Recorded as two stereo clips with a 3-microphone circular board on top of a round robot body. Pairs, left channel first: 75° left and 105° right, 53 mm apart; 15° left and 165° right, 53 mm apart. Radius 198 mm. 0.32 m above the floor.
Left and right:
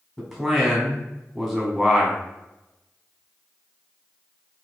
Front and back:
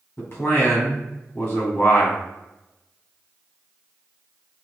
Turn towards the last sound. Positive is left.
turn(degrees=-20)